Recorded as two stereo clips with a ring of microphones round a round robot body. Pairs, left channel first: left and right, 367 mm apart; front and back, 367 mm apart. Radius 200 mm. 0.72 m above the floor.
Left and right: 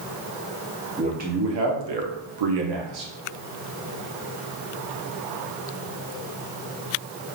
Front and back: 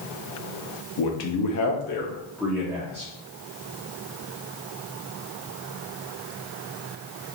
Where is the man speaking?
15° right, 0.9 m; by 3.1 s 110° right, 1.1 m.